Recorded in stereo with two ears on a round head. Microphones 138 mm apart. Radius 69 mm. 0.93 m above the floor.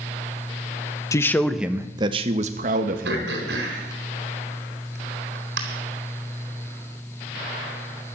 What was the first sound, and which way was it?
A man speaking, 20° left (ahead or behind).